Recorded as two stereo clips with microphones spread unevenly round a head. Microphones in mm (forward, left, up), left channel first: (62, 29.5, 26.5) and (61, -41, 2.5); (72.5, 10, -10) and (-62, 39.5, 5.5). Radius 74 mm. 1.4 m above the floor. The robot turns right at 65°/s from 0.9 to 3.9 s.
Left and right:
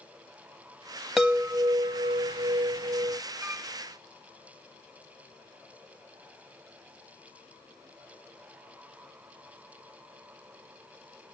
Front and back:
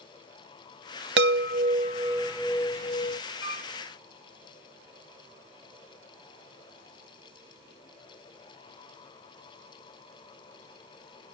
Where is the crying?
No crying in this recording.